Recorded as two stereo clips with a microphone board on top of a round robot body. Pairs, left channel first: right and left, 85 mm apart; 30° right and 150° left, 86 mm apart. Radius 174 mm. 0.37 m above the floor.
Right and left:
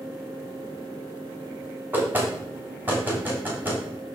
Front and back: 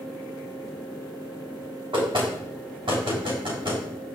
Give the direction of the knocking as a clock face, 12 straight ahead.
7 o'clock.